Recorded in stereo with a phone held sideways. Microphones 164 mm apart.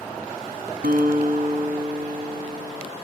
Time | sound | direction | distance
0.8 | a guitar | 75° right (ahead or behind) | 1.2 m